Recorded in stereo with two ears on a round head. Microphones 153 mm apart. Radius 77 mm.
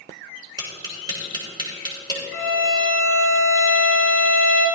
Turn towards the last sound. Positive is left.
turn(degrees=-20)  # may be behind; listen again after turning